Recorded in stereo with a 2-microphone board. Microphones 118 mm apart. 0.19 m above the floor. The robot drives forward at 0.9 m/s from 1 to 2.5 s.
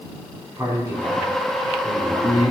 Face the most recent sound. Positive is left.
turn(degrees=-20)  # may be behind; listen again after turning